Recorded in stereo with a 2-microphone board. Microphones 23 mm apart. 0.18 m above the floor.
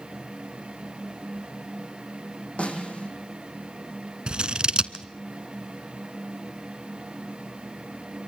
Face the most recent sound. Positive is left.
turn(degrees=-45)  # may be behind; listen again after turning